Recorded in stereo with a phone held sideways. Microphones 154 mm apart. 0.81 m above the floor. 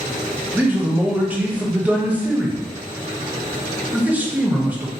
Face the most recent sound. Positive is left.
turn(degrees=-10)  # may be behind; listen again after turning